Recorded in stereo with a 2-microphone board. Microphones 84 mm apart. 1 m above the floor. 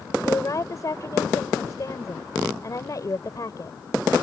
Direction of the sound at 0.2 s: 45° left (ahead or behind).